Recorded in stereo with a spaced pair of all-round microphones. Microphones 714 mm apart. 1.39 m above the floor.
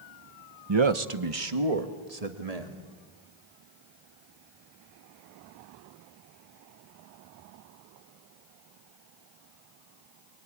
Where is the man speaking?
35° right (ahead or behind), 0.9 m; by 2.8 s 60° right (ahead or behind), 2.5 m.